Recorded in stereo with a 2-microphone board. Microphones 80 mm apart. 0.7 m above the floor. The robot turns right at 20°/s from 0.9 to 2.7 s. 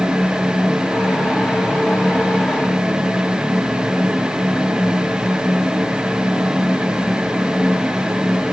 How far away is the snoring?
No snoring in this recording.